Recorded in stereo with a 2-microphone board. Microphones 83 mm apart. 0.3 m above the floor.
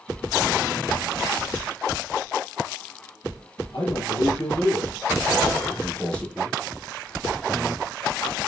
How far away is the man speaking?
About 7 m.